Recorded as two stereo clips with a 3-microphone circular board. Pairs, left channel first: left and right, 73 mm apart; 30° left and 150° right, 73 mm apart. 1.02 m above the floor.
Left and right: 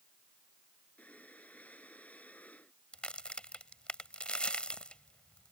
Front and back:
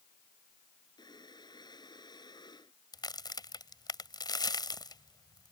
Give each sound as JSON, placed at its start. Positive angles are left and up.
{"t": 1.0, "sound": "breathing", "azimuth_deg": 20}
{"t": 2.9, "sound": "a crack", "azimuth_deg": 15}